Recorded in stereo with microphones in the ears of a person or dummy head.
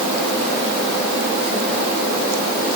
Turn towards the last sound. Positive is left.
No sound to turn to.